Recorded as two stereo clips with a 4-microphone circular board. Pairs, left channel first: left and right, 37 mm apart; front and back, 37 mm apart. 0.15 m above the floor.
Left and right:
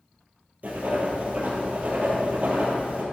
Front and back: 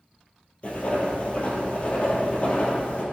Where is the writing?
50° right, 2.0 m.